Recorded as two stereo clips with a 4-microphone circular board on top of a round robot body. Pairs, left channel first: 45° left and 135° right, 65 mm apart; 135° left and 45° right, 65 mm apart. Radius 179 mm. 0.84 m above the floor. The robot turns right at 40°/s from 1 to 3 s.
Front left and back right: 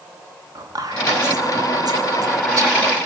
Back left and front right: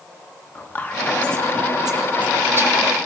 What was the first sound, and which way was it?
Whispering, 160° right.